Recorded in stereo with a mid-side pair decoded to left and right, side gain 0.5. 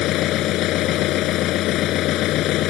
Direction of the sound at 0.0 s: 70° left.